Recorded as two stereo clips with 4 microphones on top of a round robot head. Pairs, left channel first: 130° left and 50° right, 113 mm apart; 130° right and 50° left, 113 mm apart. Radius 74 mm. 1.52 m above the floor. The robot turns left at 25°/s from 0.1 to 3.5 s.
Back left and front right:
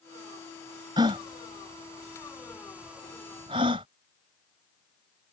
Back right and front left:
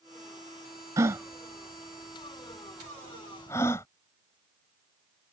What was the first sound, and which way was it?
A gasp, 5° right.